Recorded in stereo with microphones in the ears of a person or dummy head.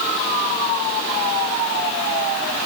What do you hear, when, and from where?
Only background noise.